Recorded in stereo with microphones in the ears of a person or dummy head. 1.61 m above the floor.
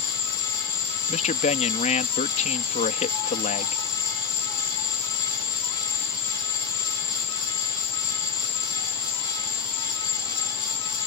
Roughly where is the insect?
Centre.